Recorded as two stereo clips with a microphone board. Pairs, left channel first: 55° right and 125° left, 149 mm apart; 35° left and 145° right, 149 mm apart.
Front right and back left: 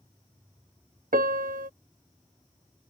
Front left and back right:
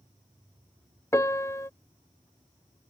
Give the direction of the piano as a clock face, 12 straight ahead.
8 o'clock.